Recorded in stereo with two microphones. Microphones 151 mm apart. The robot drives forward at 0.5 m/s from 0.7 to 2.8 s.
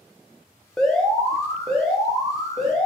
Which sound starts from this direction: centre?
An alarm, at 0.8 s.